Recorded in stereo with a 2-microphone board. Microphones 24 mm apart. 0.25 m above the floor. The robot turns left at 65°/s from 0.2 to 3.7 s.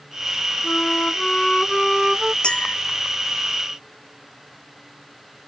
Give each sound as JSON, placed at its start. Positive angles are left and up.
{"t": 0.6, "sound": "a flute", "azimuth_deg": 85}
{"t": 2.4, "sound": "a clink", "side_deg": 40}